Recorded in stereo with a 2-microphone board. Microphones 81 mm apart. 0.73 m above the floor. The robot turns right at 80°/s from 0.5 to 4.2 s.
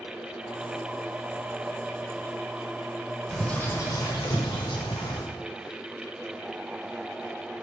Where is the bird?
Straight ahead, 1.7 m; by 5.2 s 70° left, 1.7 m.